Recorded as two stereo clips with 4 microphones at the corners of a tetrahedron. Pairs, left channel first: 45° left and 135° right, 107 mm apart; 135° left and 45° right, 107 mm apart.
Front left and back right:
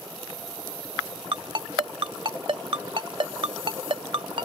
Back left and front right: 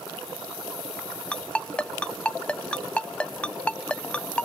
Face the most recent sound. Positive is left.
turn(degrees=-150)